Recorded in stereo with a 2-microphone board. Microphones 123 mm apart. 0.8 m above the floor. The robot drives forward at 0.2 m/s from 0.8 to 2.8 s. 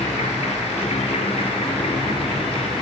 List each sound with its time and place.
0.0 s an insect: 60° left (ahead or behind), 0.8 m; by 2.8 s 40° left (ahead or behind), 1.1 m